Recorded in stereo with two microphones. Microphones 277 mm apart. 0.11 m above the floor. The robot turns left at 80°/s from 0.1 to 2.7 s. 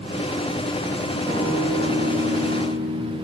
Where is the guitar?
10° right, 3.5 m; by 3.1 s 125° right, 3.5 m.